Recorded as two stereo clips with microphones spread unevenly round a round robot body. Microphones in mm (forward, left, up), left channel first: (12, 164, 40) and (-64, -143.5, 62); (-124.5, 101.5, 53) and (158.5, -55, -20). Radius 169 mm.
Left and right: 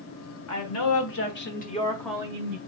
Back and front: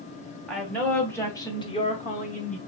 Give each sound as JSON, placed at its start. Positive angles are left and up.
{"t": 0.5, "sound": "a woman speaking", "azimuth_deg": 55, "distance_m": 1.8}